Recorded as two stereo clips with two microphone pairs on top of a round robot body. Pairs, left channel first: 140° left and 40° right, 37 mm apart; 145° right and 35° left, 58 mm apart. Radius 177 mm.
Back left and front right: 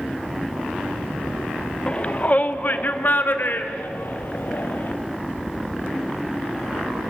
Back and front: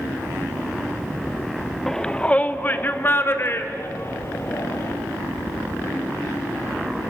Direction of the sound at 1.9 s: 125° left.